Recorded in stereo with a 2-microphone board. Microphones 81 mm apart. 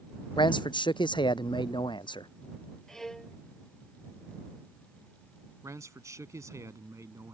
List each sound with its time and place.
0.4 s a man speaking: 80° left
2.9 s a violin: 5° left (ahead or behind)
5.6 s a man speaking: 40° right (ahead or behind)